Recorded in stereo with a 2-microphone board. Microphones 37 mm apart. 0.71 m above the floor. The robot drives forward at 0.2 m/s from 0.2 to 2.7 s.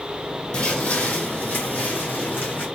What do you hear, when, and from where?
0.5 s footsteps: 40° left (ahead or behind), 1.5 m; by 2.6 s 75° left (ahead or behind), 2.5 m